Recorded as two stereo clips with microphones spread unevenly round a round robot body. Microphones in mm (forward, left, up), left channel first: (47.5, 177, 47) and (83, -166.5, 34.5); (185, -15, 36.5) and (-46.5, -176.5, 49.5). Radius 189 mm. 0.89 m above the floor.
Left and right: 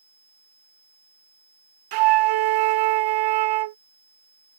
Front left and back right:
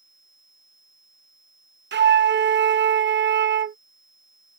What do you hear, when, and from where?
1.9 s a flute: 90° right